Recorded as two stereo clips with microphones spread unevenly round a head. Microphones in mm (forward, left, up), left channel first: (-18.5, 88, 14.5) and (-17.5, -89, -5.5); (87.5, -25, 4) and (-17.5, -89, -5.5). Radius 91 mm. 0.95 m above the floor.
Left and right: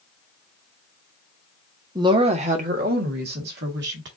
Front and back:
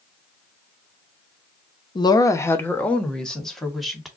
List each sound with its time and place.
1.9 s a woman speaking: 25° right, 0.8 m; by 4.1 s 60° right, 2 m